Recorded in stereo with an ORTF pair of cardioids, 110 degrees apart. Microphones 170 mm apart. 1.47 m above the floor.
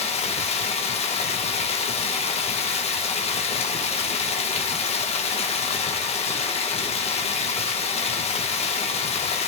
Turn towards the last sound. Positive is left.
turn(degrees=40)